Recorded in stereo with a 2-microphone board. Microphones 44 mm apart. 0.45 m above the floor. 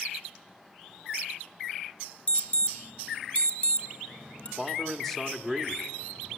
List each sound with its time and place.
2.3 s an alarm: 30° left (ahead or behind), 1.0 m
4.6 s a man speaking: 5° left (ahead or behind), 1.1 m